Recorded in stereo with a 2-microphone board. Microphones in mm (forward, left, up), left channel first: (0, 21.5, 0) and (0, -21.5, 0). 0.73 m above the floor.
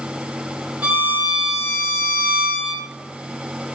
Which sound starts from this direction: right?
A violin, at 0.8 s.